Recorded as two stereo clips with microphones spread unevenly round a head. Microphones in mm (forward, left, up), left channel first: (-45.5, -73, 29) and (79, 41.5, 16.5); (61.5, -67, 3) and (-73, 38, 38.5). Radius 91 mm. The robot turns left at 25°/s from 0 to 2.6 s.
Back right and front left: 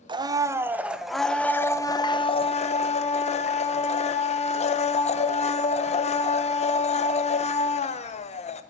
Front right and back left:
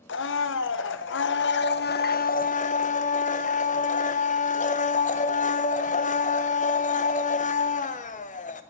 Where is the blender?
20° right, 0.9 m; by 8.6 s 85° right, 0.9 m.